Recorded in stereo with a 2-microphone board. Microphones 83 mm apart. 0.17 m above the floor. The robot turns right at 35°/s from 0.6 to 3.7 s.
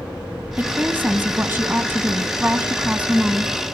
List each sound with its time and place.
0.6 s a woman speaking: 20° right (ahead or behind), 1.2 m; by 3.5 s 10° right (ahead or behind), 1.2 m